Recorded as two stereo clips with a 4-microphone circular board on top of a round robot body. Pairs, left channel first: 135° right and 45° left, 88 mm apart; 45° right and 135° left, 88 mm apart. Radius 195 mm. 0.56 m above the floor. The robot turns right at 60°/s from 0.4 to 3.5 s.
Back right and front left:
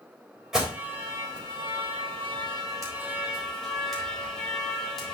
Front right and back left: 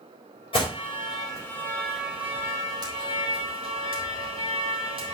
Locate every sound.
0.5 s an alarm: 40° right, 4 m; by 5.1 s 135° left, 4 m